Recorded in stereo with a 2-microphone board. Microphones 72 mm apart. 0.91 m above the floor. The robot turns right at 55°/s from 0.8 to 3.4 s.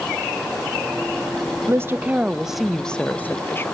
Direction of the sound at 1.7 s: 50° right.